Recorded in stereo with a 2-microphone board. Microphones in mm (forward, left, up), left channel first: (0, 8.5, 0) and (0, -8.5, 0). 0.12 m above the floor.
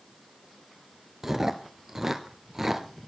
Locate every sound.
1.2 s chewing: 15° right (ahead or behind), 1.0 m